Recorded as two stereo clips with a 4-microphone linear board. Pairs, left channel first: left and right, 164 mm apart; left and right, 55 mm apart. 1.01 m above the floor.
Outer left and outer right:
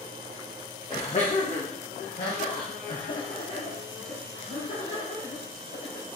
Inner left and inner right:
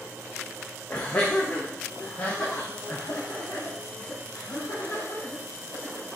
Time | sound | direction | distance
0.9 | laughter | 35° left (ahead or behind) | 0.7 m